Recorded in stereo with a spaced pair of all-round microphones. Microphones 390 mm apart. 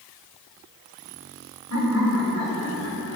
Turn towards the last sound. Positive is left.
turn(degrees=40)  # may be behind; listen again after turning